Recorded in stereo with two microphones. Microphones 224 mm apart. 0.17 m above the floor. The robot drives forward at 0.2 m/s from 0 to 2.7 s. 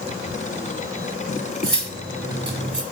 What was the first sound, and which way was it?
Cutlery clinking, 60° right (ahead or behind).